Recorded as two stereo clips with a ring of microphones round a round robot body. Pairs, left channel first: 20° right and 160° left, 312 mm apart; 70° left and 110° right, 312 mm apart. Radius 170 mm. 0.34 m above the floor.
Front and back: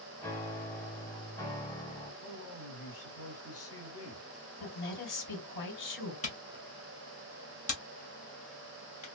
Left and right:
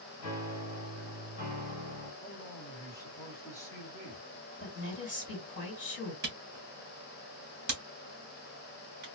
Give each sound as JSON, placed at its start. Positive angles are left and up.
{"t": 0.2, "sound": "a piano", "azimuth_deg": 60, "distance_m": 1.4}
{"t": 2.2, "sound": "a man speaking", "azimuth_deg": -10, "distance_m": 1.9}
{"t": 4.6, "sound": "a woman speaking", "azimuth_deg": 10, "distance_m": 2.0}
{"t": 6.2, "sound": "a camera shutter", "azimuth_deg": -75, "distance_m": 1.3}